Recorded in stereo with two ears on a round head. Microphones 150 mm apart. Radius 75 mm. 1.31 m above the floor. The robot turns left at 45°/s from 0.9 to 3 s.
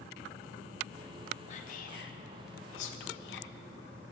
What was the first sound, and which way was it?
Whispering, 40° left (ahead or behind).